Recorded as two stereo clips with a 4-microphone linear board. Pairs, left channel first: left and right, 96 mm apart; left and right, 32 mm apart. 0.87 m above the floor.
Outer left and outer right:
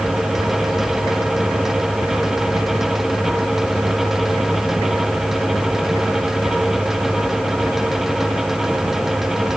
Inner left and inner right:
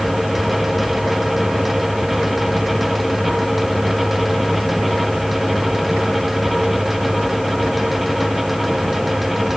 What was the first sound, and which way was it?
Only background noise.